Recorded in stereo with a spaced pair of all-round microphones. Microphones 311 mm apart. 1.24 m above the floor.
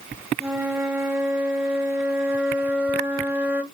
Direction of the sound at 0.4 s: 5° right (ahead or behind).